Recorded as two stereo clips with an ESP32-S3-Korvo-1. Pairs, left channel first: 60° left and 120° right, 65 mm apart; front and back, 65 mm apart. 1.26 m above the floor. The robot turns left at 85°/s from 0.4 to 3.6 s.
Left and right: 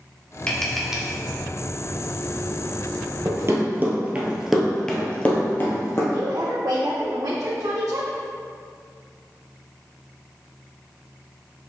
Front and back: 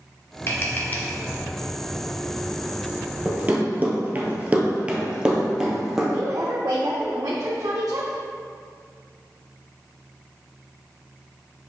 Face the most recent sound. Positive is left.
turn(degrees=-150)